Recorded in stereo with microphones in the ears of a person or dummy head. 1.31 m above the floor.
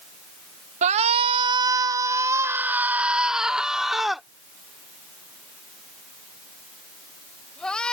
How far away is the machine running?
No machine running in this recording.